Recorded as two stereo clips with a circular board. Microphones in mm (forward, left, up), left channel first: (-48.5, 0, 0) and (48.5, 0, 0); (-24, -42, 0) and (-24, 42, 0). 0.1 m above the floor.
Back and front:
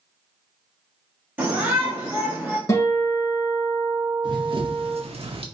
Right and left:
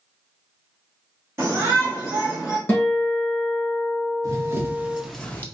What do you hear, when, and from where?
1.4 s a shout: 55° left, 1.9 m; by 2.6 s 20° left, 1.7 m
2.7 s a guitar: 150° right, 2 m
4.2 s running footsteps: 40° left, 1.0 m; by 5.5 s 25° right, 0.6 m